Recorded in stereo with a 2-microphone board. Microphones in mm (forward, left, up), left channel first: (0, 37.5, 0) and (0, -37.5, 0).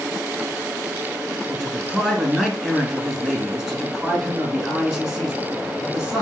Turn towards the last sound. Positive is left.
turn(degrees=-5)  # may be behind; listen again after turning